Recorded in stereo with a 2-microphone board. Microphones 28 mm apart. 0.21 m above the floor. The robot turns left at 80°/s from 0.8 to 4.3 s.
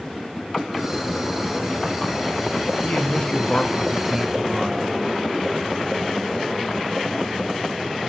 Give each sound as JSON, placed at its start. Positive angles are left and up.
{"t": 2.8, "sound": "a man speaking", "azimuth_deg": 90, "distance_m": 1.8}